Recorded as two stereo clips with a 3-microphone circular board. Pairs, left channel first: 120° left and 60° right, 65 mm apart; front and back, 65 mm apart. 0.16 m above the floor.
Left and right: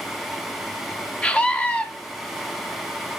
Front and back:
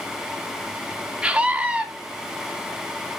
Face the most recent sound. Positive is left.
turn(degrees=145)